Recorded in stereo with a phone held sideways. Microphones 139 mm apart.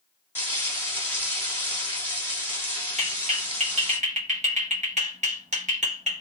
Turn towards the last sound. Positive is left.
turn(degrees=-55)  # may be behind; listen again after turning